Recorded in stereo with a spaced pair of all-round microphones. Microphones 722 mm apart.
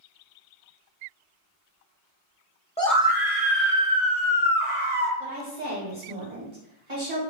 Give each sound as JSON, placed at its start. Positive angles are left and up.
{"t": 2.8, "sound": "a scream", "side_deg": 10, "distance_m": 0.6}
{"t": 5.2, "sound": "a woman speaking", "side_deg": -65, "distance_m": 1.8}